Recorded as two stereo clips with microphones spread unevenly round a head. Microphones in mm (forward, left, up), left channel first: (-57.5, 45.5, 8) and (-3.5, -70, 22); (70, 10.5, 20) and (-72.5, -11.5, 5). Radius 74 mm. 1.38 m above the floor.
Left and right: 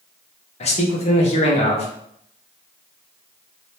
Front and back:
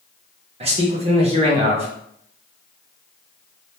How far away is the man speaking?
About 1.3 m.